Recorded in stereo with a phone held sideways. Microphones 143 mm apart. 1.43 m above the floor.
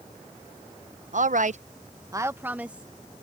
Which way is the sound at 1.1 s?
60° right (ahead or behind).